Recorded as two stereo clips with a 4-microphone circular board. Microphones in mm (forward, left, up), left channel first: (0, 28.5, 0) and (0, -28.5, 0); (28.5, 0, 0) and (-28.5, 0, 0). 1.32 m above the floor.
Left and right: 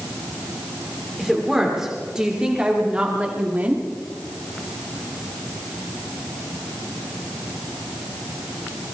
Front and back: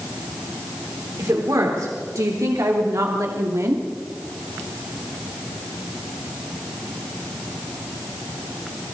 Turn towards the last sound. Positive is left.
turn(degrees=-150)